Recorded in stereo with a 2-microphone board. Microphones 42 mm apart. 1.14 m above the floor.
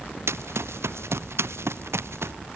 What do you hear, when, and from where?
0.3 s running footsteps: 85° right; by 2.3 s 80° right